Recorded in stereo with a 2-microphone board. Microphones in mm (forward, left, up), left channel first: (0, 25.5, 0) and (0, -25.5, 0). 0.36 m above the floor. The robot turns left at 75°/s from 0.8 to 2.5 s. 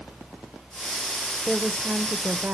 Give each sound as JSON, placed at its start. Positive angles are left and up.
{"t": 1.4, "sound": "a woman speaking", "azimuth_deg": -15, "distance_m": 0.9}